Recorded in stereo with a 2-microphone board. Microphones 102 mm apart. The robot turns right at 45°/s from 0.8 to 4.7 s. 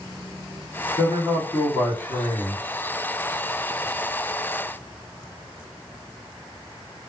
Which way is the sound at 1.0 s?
50° left.